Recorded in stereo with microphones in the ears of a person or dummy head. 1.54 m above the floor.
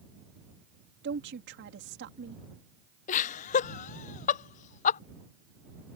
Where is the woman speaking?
55° right (ahead or behind).